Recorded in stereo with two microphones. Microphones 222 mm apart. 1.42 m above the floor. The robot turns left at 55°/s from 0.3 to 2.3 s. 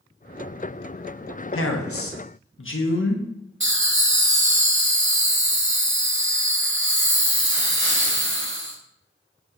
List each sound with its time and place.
1.5 s a man speaking: 105° left, 0.5 m; by 3.3 s 65° left, 0.5 m
3.6 s laughter: 60° right (ahead or behind), 0.9 m